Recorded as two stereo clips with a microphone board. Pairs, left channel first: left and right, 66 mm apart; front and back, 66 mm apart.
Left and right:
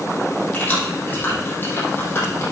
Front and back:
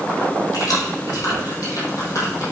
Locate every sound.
0.5 s keys jangling: 25° left, 5 m; by 2.4 s 40° left, 5.5 m